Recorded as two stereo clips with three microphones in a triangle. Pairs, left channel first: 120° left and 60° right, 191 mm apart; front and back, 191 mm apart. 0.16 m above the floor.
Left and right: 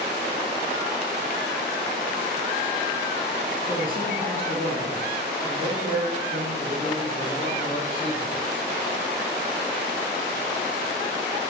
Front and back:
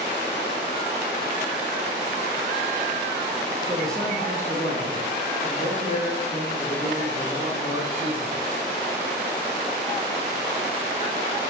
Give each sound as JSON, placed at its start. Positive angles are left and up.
{"t": 3.7, "sound": "a man speaking", "azimuth_deg": -95, "distance_m": 3.0}